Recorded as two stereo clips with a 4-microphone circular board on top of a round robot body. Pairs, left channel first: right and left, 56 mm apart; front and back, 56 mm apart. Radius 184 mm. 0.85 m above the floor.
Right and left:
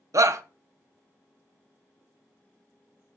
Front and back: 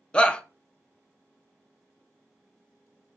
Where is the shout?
75° left, 0.6 m.